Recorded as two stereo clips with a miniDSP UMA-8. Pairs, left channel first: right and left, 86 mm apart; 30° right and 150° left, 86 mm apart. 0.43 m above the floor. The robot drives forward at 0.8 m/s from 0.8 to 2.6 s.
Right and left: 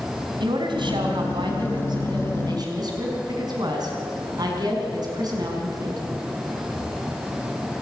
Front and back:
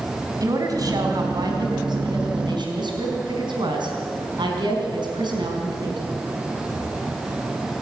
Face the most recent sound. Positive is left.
turn(degrees=125)